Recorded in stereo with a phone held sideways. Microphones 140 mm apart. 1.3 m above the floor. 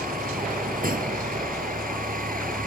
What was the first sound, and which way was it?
A vehicle, 85° right.